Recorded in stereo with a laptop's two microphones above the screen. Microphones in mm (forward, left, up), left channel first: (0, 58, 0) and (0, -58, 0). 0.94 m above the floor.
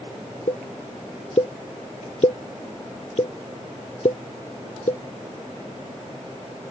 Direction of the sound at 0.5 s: 60° left (ahead or behind).